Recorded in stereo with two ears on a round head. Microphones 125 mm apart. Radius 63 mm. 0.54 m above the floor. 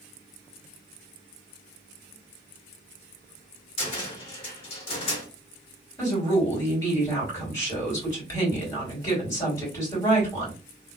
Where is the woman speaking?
25° left (ahead or behind), 1.8 m.